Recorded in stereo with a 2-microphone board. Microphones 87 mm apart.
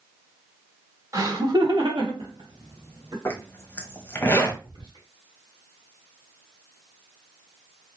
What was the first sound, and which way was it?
Laughter, 40° right (ahead or behind).